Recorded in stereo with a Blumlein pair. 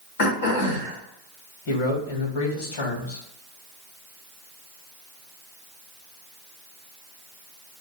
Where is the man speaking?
50° left, 2.5 m.